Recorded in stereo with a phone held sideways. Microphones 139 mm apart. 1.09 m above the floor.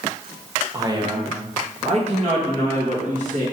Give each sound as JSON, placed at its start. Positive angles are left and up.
{"t": 0.7, "sound": "a man speaking", "side_deg": -25, "distance_m": 0.7}